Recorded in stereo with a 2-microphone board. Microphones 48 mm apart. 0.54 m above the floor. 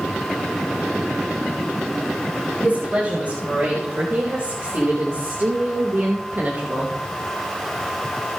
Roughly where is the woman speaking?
Right.